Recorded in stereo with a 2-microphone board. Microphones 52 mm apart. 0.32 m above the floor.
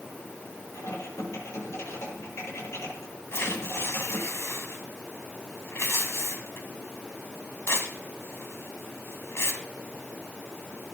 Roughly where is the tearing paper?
Left.